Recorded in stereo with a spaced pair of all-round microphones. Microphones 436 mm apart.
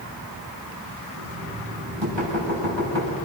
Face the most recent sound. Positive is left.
turn(degrees=-75)  # may be behind; listen again after turning